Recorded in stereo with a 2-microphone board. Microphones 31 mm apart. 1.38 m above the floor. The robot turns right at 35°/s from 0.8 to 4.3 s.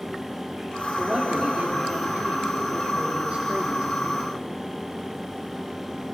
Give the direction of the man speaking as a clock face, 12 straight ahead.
5 o'clock.